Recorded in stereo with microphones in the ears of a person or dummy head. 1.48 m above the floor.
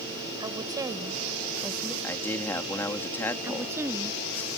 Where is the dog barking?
No dog barking in this recording.